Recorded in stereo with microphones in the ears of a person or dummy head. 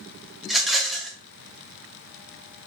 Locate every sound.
0.4 s a rattle: centre (ahead or behind), 0.6 m